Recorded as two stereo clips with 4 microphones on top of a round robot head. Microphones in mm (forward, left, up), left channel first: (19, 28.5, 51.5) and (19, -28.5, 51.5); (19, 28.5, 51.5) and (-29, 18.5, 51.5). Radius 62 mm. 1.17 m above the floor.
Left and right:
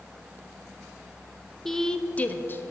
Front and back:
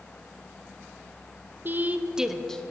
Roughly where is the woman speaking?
Behind.